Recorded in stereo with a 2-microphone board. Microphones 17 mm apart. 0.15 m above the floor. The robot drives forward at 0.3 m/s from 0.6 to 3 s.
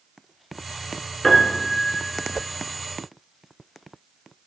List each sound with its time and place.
1.2 s a piano: 15° left (ahead or behind), 0.7 m; by 2.4 s 10° left (ahead or behind), 0.9 m